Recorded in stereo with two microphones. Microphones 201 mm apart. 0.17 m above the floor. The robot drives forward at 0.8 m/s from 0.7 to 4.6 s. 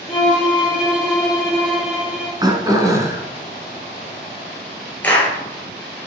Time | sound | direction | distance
0.1 | a violin | 5° right (ahead or behind) | 3.5 m
2.4 | throat clearing | 20° right (ahead or behind) | 1.1 m
5.0 | a clap | 10° left (ahead or behind) | 3 m